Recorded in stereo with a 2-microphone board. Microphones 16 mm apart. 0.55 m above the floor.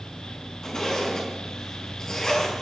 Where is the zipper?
45° left (ahead or behind), 4.5 m.